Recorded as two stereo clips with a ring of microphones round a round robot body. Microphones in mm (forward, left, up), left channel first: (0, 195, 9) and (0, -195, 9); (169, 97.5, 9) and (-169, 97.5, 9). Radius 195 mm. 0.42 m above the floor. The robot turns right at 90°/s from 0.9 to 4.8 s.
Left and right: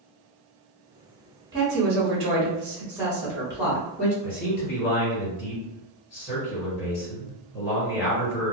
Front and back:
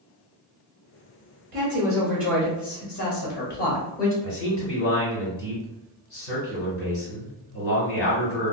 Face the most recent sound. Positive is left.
turn(degrees=35)